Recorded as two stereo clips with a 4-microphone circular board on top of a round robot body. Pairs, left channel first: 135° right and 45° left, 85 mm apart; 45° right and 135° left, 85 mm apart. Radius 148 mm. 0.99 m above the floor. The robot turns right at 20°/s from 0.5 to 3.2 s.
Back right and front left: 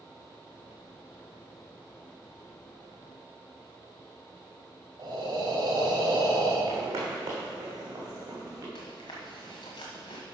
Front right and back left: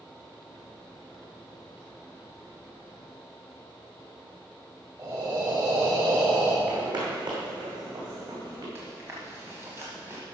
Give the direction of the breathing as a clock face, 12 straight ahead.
9 o'clock.